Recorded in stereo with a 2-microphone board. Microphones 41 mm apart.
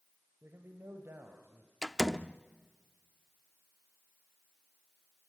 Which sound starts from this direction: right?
A man speaking, at 0.4 s.